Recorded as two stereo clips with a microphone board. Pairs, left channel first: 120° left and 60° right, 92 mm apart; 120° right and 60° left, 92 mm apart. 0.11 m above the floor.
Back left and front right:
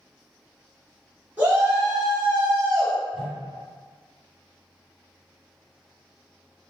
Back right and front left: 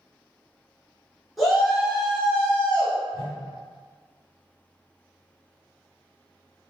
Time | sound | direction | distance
1.4 | a shout | 30° right | 1.6 m
3.1 | a whoosh | 70° right | 1.0 m